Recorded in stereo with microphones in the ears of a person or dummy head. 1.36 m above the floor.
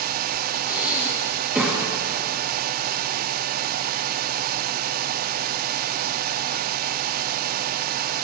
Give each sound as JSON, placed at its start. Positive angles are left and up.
{"t": 0.7, "sound": "breathing", "side_deg": -5, "distance_m": 1.3}